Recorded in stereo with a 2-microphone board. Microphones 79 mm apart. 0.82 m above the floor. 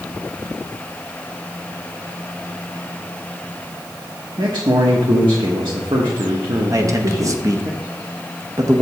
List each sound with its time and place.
4.4 s a man speaking: 75° right (ahead or behind), 1.1 m
6.7 s a man speaking: 40° right (ahead or behind), 0.8 m